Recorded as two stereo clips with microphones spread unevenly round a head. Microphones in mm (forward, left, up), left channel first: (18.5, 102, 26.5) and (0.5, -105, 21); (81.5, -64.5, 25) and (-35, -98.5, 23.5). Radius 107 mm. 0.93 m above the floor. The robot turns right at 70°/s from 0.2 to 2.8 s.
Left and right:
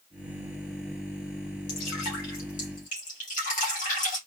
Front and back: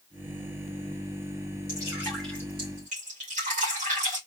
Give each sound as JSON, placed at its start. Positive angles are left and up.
{"t": 1.7, "sound": "dripping", "azimuth_deg": 65, "distance_m": 2.0}